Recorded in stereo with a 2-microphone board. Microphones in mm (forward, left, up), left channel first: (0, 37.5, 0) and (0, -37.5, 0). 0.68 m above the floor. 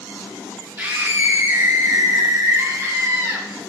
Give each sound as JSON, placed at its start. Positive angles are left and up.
{"t": 0.8, "sound": "a scream", "side_deg": -20, "distance_m": 1.4}